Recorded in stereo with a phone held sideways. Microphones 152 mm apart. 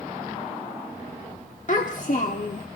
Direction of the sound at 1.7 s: 55° left (ahead or behind).